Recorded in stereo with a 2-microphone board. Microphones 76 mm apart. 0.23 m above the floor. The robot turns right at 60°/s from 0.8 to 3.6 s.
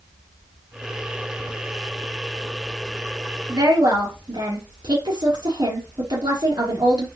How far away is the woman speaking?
About 4 m.